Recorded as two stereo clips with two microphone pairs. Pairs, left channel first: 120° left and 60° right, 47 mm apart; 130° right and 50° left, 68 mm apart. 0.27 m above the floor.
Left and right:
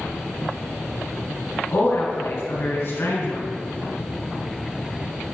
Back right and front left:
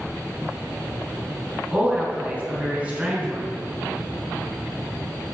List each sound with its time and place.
1.7 s a woman speaking: 120° left, 3 m